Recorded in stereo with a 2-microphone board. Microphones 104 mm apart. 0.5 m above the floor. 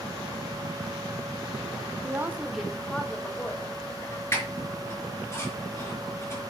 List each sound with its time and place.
2.0 s a woman speaking: 25° right (ahead or behind), 1.3 m; by 4.2 s 30° left (ahead or behind), 2.5 m
4.3 s a squeak: 25° left (ahead or behind), 4.5 m